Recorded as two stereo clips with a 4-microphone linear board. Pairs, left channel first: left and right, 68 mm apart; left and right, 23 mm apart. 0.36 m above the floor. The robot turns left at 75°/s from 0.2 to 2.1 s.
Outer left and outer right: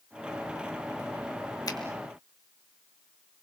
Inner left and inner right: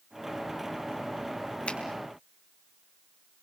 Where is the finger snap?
70° left (ahead or behind), 3 m; by 1.8 s 60° left (ahead or behind), 3 m.